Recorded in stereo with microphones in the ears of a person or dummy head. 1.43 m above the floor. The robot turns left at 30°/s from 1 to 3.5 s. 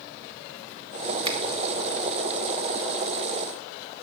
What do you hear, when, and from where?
1.2 s a finger snap: 30° right (ahead or behind), 1.2 m